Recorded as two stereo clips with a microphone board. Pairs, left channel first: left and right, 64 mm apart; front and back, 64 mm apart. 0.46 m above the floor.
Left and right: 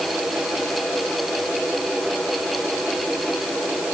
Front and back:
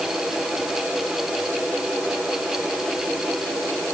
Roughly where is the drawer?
No drawer in this recording.